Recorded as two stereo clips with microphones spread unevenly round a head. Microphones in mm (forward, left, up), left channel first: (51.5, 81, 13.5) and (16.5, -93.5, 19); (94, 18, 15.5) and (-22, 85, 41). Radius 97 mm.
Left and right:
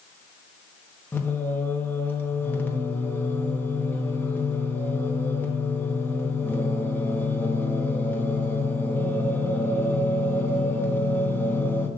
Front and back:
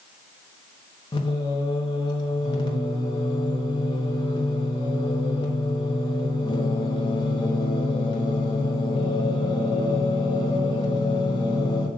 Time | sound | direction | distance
1.1 | singing | 10° left | 1.2 m